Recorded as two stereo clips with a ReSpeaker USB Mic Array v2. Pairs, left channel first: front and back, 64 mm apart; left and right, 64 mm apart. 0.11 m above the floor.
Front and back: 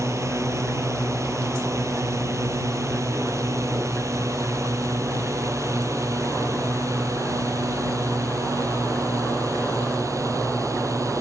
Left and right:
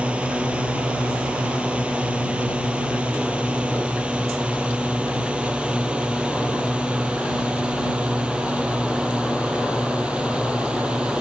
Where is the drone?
155° right; by 11.2 s 160° right.